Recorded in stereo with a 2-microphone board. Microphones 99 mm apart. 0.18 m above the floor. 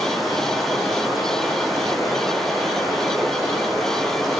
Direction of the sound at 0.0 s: Centre (ahead or behind).